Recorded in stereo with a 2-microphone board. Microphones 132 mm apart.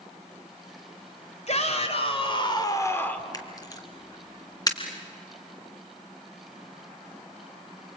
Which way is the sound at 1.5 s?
55° left (ahead or behind).